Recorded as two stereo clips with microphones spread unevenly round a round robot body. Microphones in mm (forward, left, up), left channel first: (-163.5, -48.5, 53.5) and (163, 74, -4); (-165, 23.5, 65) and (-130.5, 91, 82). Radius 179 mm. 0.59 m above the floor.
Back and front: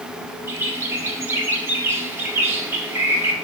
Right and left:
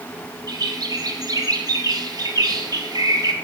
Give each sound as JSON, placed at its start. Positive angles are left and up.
{"t": 0.5, "sound": "a bird", "azimuth_deg": 95, "distance_m": 1.4}